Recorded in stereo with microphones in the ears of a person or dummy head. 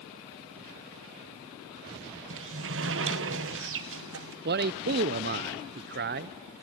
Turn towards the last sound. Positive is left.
turn(degrees=-45)  # may be behind; listen again after turning